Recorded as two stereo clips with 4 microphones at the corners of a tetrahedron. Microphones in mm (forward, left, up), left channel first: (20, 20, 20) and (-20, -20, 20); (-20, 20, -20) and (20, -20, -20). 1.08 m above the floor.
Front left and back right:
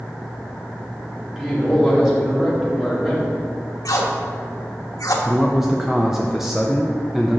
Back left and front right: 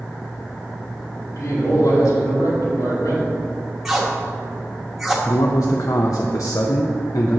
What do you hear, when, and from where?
1.2 s a man speaking: 145° left, 2.5 m
3.9 s tape being pulled: 40° left, 1.1 m
5.2 s a man speaking: 140° left, 0.5 m